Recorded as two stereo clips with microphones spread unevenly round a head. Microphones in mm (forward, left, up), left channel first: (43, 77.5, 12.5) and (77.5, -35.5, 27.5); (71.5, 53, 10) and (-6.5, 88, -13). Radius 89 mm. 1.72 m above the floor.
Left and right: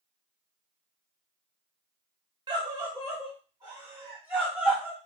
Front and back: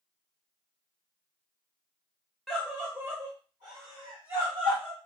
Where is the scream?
100° right, 0.6 m; by 5.0 s 155° right, 1.5 m.